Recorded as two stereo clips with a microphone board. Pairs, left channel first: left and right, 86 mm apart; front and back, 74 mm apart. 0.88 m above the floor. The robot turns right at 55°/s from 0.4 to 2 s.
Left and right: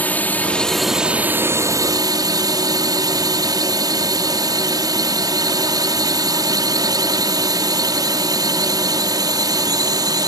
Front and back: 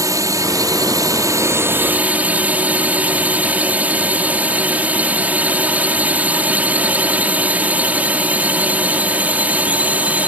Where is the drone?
155° left; by 10.3 s 115° right.